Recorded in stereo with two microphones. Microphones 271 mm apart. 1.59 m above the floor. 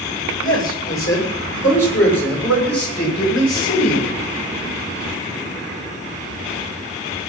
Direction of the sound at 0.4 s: 45° left (ahead or behind).